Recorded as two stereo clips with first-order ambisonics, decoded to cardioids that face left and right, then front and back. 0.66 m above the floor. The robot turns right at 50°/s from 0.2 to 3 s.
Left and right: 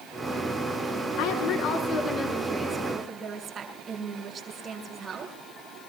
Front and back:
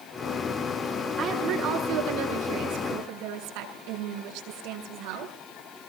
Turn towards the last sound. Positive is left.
turn(degrees=-160)